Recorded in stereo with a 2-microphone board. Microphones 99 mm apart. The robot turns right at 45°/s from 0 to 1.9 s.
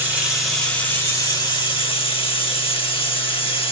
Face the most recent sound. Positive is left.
turn(degrees=70)